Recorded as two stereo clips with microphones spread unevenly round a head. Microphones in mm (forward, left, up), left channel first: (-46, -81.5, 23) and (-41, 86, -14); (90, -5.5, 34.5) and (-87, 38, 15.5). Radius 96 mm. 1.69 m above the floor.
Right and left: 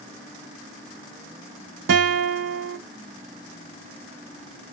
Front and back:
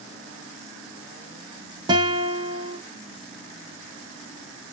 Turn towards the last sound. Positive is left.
turn(degrees=100)